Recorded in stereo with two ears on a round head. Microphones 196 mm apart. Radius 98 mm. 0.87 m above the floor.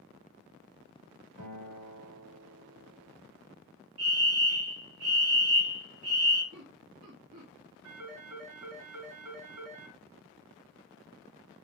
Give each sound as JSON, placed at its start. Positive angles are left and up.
{"t": 1.4, "sound": "a guitar", "side_deg": -70, "distance_m": 2.5}
{"t": 4.0, "sound": "a fire alarm", "side_deg": -70, "distance_m": 3.5}
{"t": 6.5, "sound": "laughter", "side_deg": -60, "distance_m": 1.5}
{"t": 7.8, "sound": "a phone ringing", "side_deg": -75, "distance_m": 4.5}